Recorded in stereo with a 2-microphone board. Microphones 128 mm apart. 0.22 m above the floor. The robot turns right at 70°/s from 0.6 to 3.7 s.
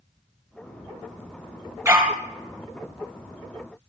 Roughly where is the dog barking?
Right.